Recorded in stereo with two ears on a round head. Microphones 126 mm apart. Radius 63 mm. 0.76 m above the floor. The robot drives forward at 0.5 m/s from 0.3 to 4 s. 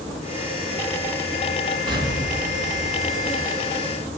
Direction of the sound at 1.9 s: 35° right (ahead or behind).